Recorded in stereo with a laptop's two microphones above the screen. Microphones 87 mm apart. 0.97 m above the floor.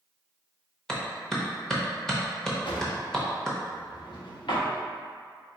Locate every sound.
0.9 s a clap: 10° left (ahead or behind), 0.7 m
2.6 s a drawer: 70° left (ahead or behind), 0.9 m